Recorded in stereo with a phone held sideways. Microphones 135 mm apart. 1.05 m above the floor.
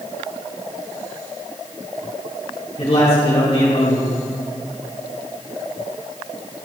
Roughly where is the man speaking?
Left.